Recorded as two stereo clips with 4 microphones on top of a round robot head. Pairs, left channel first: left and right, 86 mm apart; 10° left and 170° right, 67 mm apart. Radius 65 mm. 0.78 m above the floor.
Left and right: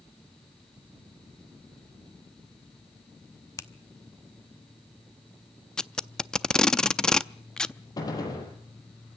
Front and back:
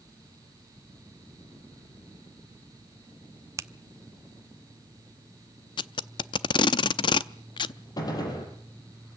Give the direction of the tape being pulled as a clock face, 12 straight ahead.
12 o'clock.